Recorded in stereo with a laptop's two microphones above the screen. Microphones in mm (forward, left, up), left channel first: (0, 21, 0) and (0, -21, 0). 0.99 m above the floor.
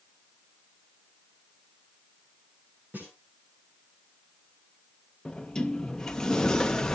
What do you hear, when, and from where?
2.9 s a snare drum: 45° right (ahead or behind), 10 m
5.2 s a sliding door: 15° left (ahead or behind), 0.7 m